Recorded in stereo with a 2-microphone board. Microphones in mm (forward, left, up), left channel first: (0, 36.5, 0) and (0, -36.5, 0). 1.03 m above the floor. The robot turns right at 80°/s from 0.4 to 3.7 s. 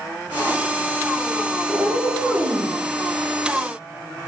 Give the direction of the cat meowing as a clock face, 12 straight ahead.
5 o'clock.